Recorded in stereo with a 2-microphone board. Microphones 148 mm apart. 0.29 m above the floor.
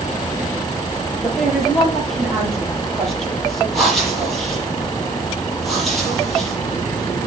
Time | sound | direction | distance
1.2 | a woman speaking | 5° left (ahead or behind) | 7 m
3.7 | breathing | centre (ahead or behind) | 8 m